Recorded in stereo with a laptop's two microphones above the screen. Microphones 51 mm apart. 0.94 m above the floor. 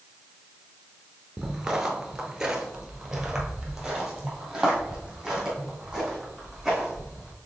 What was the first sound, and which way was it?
Footsteps, 15° right (ahead or behind).